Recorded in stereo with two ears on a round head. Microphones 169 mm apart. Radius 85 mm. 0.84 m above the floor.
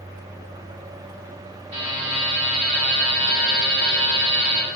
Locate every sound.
1.7 s a buzzer: 35° right (ahead or behind), 1.1 m